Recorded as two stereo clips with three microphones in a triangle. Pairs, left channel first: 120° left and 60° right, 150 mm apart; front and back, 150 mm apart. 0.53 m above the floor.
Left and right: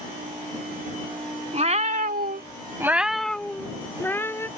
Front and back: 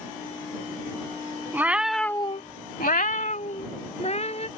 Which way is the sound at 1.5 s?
100° right.